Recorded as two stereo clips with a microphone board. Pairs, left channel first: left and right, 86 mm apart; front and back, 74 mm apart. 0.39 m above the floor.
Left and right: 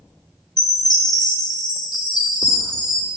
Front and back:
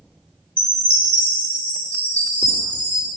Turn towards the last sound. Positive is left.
turn(degrees=70)